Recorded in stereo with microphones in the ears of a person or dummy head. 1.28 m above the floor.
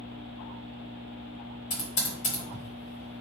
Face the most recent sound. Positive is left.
turn(degrees=35)  # may be behind; listen again after turning